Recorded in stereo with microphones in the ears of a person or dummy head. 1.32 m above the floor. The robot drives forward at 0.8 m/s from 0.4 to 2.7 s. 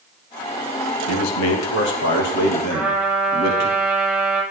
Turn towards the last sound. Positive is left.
turn(degrees=-5)  # may be behind; listen again after turning